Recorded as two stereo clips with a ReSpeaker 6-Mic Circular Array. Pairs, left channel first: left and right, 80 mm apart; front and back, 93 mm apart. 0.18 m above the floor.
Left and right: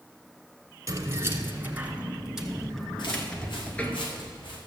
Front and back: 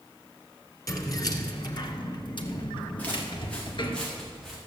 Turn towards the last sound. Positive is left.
turn(degrees=85)